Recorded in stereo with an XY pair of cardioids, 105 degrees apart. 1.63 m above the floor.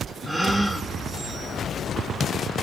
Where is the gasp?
5° right, 0.5 m.